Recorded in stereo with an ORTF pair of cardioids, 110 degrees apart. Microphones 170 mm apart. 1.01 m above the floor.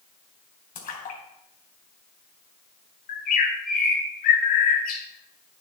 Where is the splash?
50° left, 4 m.